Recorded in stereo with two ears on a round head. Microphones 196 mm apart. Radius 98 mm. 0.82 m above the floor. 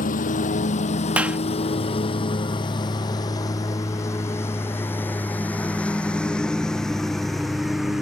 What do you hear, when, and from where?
0.0 s a lawn mower: 40° left (ahead or behind); by 8.0 s centre (ahead or behind)
1.2 s a clap: 5° right (ahead or behind)